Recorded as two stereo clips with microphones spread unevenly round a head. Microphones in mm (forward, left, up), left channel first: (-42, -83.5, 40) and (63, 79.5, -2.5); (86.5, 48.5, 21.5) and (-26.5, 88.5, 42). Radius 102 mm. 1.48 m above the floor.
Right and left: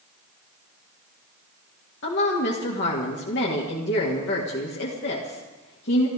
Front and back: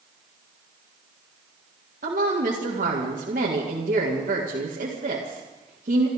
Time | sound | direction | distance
2.0 | a woman speaking | 160° right | 2 m